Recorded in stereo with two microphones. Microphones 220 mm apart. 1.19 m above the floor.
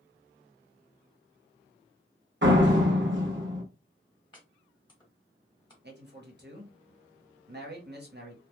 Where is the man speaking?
50° right (ahead or behind), 1.0 m.